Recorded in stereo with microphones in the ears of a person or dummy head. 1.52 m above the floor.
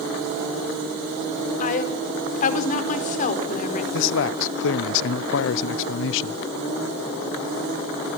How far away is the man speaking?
About 0.8 m.